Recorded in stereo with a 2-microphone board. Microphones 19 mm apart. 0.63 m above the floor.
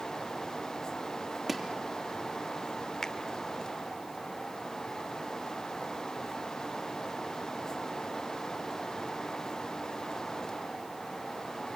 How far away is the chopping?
About 3 m.